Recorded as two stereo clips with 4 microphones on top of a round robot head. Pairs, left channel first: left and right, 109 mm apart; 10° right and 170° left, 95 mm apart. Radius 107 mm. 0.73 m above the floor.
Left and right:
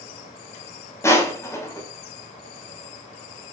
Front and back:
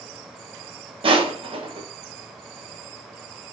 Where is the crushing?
155° left, 5 m.